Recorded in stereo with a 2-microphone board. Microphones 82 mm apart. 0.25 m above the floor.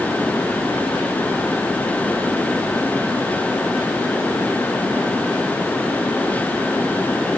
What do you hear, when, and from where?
Only background noise.